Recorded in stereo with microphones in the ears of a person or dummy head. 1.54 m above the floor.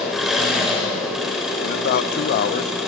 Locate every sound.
0.0 s an engine running: centre (ahead or behind), 7 m
1.6 s a man speaking: 60° left (ahead or behind), 1.2 m